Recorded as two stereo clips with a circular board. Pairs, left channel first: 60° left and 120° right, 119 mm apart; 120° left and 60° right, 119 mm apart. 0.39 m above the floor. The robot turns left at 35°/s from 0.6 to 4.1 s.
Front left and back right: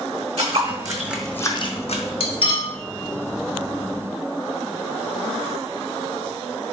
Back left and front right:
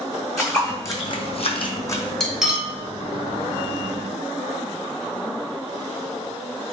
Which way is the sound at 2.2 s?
35° left.